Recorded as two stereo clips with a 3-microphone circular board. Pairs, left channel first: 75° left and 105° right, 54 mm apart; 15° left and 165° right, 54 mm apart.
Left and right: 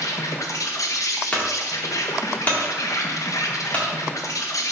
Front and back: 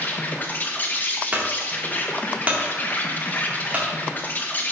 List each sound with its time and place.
0.0 s an insect: 75° left, 0.9 m
1.3 s a clunk: 140° left, 2 m